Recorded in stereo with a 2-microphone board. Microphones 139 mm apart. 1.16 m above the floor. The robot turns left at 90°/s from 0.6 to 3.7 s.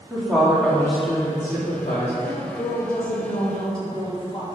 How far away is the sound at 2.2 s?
About 1.7 m.